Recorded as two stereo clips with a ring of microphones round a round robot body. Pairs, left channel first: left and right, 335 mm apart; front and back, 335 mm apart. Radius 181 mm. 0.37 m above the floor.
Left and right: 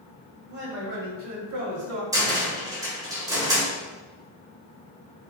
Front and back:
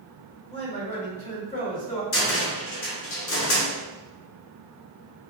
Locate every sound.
0.5 s a man speaking: 60° right, 1.4 m
2.1 s a cupboard door: 15° right, 1.2 m